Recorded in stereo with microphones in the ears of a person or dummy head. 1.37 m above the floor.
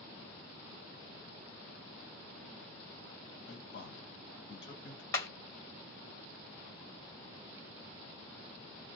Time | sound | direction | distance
3.5 | a man speaking | 65° left (ahead or behind) | 1.1 m
5.1 | hammering | 20° left (ahead or behind) | 1.8 m